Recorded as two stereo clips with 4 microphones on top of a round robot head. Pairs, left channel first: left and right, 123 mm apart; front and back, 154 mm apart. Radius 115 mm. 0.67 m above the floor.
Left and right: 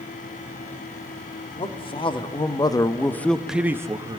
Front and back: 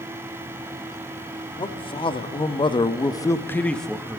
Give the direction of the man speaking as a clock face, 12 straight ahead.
10 o'clock.